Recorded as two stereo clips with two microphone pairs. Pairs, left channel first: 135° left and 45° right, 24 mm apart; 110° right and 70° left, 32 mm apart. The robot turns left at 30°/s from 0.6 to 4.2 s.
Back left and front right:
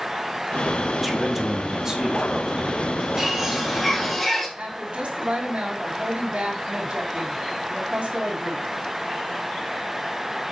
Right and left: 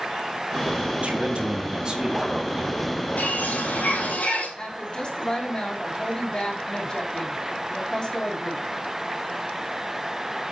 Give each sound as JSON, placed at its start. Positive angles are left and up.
{"t": 1.0, "sound": "a man speaking", "azimuth_deg": 35, "distance_m": 2.0}
{"t": 3.2, "sound": "a bird", "azimuth_deg": -110, "distance_m": 4.5}
{"t": 4.6, "sound": "a woman speaking", "azimuth_deg": -55, "distance_m": 2.5}